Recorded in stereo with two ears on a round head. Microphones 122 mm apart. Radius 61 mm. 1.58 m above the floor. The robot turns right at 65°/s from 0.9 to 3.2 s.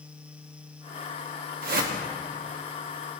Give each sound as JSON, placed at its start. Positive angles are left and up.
{"t": 1.6, "sound": "a whoosh", "side_deg": -70, "distance_m": 1.2}